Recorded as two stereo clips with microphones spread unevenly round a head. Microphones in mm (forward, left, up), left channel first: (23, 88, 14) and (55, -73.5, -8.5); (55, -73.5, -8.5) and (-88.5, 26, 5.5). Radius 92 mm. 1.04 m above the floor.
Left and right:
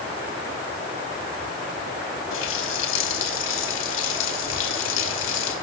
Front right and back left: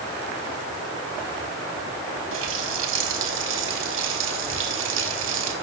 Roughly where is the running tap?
Behind left.